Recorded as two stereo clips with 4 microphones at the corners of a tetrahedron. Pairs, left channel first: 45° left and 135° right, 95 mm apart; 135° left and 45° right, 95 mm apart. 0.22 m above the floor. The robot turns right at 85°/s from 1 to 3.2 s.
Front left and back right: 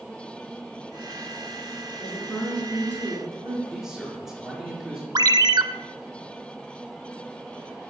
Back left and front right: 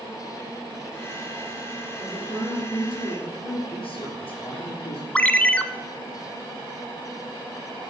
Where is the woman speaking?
80° left, 4.5 m; by 3.6 s straight behind, 4.5 m.